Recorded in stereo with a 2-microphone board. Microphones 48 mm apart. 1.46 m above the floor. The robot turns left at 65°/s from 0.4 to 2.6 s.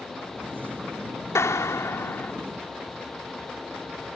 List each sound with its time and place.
1.4 s a clap: 100° left; by 2.3 s 35° left